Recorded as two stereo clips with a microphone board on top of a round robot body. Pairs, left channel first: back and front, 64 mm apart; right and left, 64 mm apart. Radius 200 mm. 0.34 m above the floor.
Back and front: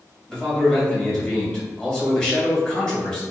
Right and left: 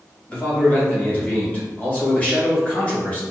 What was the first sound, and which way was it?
A man speaking, 120° right.